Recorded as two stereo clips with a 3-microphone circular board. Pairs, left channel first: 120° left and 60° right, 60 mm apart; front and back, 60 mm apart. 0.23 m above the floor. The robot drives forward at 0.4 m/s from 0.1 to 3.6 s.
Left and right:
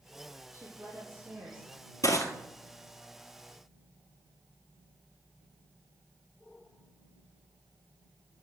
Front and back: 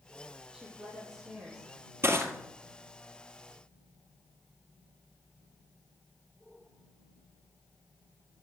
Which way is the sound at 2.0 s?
135° left.